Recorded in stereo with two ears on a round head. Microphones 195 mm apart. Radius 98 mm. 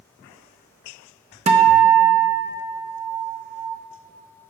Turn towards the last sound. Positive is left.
turn(degrees=-30)  # may be behind; listen again after turning